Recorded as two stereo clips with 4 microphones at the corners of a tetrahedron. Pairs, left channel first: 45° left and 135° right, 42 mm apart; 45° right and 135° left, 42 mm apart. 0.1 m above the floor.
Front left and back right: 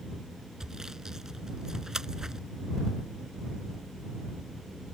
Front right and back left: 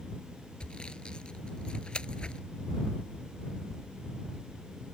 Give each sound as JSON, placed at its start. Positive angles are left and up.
{"t": 0.6, "sound": "sawing", "azimuth_deg": -75}